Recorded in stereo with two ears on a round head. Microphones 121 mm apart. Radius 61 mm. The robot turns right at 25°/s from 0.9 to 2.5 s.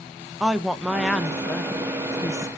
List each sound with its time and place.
0.4 s a woman speaking: 5° right, 0.8 m; by 2.5 s 35° left, 0.8 m